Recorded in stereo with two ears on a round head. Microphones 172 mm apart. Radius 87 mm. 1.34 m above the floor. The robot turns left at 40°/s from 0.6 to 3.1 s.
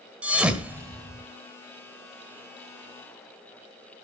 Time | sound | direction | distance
0.2 | a thud | 5° right (ahead or behind) | 1.6 m